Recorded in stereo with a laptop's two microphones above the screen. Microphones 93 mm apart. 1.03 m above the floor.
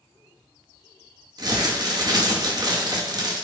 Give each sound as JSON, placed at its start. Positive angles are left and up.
{"t": 1.4, "sound": "crumpling", "side_deg": -45, "distance_m": 1.9}